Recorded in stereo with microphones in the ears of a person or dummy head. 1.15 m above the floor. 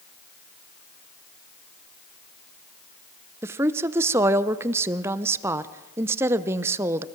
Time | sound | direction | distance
3.4 | a woman speaking | 15° right (ahead or behind) | 0.7 m